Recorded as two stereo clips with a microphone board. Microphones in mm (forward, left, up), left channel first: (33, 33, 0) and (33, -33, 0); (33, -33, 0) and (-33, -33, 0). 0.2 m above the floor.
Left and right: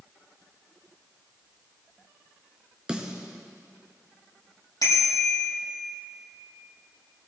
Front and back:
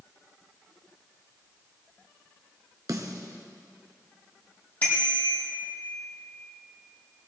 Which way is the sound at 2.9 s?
165° right.